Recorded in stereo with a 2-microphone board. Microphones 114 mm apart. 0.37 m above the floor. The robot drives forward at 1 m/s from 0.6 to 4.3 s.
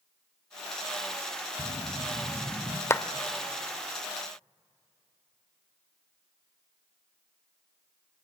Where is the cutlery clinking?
I don't hear cutlery clinking.